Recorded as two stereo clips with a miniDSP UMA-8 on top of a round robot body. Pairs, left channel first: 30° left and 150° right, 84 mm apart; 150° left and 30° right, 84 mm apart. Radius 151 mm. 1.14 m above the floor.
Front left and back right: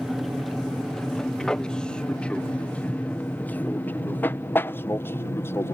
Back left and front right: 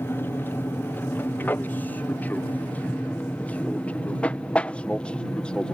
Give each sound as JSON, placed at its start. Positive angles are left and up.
{"t": 0.0, "sound": "an aircraft", "azimuth_deg": 120}